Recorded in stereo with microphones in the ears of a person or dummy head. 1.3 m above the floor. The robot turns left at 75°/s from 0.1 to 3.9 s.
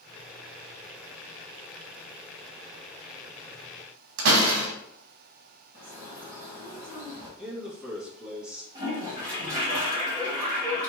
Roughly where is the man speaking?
Centre.